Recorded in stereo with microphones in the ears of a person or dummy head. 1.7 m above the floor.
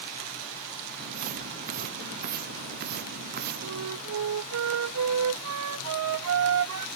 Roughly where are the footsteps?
Right.